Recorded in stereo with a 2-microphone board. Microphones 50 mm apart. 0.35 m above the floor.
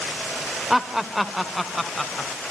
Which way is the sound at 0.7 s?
10° right (ahead or behind).